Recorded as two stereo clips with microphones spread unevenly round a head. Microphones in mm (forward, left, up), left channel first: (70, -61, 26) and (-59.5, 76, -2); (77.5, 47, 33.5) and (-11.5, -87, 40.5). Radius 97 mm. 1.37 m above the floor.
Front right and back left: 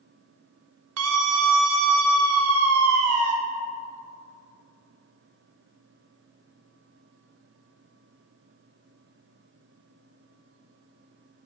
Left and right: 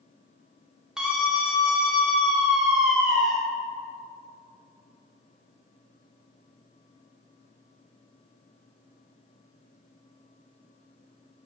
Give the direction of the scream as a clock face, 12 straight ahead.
7 o'clock.